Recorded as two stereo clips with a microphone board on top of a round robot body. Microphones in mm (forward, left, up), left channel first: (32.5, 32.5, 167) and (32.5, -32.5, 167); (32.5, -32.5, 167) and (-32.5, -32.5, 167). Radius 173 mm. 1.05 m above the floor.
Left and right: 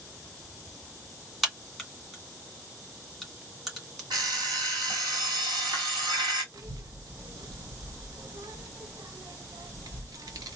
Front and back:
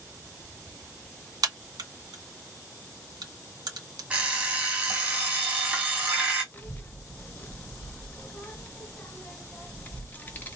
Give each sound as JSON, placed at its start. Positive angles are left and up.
{"t": 1.4, "sound": "a crack", "azimuth_deg": -175, "distance_m": 2.0}
{"t": 4.1, "sound": "an alarm clock", "azimuth_deg": -110, "distance_m": 1.1}
{"t": 6.5, "sound": "a child speaking", "azimuth_deg": -65, "distance_m": 0.8}